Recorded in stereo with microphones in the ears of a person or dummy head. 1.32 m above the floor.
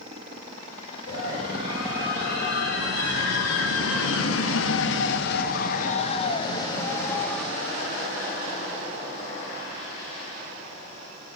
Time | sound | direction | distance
1.1 | a scream | 60° left (ahead or behind) | 6.5 m